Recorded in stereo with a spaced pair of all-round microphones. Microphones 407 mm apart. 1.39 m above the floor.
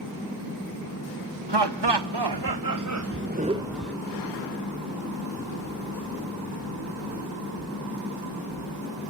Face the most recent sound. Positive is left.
turn(degrees=5)  # may be behind; listen again after turning